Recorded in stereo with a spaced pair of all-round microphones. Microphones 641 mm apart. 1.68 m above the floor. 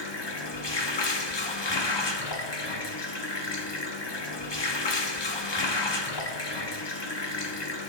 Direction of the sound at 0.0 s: 40° left (ahead or behind).